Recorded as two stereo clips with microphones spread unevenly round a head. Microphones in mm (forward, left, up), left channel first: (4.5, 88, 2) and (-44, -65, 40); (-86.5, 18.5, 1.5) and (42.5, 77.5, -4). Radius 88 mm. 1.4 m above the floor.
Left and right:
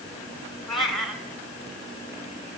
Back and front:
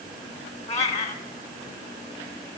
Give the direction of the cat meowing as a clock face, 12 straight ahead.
6 o'clock.